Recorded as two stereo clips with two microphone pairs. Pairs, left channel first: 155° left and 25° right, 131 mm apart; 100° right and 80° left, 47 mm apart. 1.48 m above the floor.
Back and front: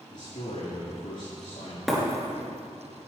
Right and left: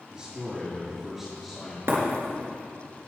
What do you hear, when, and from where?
0.1 s a man speaking: 145° left, 2.5 m; by 1.8 s 170° left, 3 m
1.9 s breaking glass: 60° left, 3.5 m